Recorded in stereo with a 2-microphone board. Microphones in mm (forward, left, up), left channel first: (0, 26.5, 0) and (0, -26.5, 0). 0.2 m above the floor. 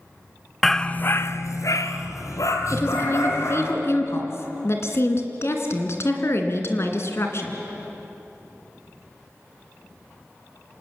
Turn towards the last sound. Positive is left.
turn(degrees=55)  # may be behind; listen again after turning